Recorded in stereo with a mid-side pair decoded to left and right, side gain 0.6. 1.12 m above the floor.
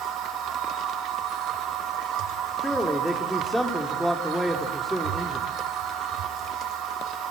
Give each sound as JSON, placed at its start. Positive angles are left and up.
{"t": 0.0, "sound": "a machine running", "azimuth_deg": -65, "distance_m": 4.0}
{"t": 2.6, "sound": "a man speaking", "azimuth_deg": 5, "distance_m": 3.0}